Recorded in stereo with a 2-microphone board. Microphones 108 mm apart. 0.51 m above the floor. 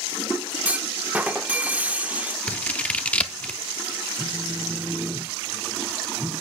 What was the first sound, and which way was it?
A clunk, 15° right (ahead or behind).